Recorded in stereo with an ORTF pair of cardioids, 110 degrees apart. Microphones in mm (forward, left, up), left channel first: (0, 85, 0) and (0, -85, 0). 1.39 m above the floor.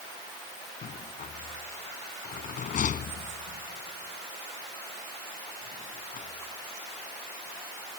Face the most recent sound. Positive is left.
turn(degrees=50)